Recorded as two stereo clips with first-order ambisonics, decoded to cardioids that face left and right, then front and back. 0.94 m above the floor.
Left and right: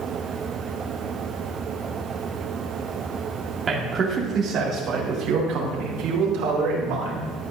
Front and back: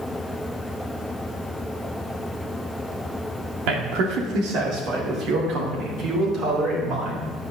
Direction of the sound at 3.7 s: 165° right.